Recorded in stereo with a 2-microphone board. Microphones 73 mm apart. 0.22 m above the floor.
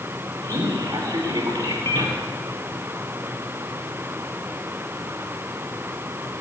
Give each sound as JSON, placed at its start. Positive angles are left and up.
{"t": 0.4, "sound": "a man speaking", "side_deg": -75, "distance_m": 4.5}